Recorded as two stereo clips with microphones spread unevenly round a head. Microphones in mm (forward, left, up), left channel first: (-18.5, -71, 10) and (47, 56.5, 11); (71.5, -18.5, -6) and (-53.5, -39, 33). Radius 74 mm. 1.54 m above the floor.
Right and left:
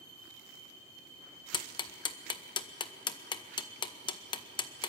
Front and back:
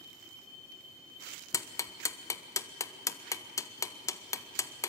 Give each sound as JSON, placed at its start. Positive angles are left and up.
{"t": 1.5, "sound": "ticking", "azimuth_deg": -60, "distance_m": 1.1}